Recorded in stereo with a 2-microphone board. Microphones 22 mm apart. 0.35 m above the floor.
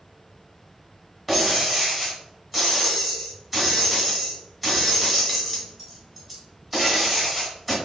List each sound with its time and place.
1.3 s breaking glass: 10° right (ahead or behind), 1.7 m